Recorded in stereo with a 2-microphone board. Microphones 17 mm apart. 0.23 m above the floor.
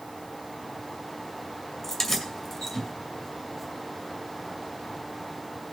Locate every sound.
1.8 s keys jangling: 30° left (ahead or behind), 2 m